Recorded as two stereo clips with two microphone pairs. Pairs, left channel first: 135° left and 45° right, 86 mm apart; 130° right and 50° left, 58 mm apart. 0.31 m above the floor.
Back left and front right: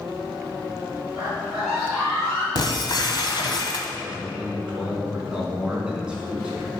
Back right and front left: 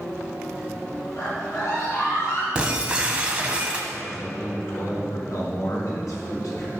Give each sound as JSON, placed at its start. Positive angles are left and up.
{"t": 1.2, "sound": "a scream", "azimuth_deg": -120, "distance_m": 2.5}
{"t": 2.5, "sound": "breaking glass", "azimuth_deg": 120, "distance_m": 1.3}
{"t": 4.0, "sound": "a man speaking", "azimuth_deg": -120, "distance_m": 4.0}